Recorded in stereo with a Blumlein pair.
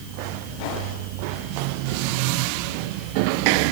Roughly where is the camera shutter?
I don't hear a camera shutter.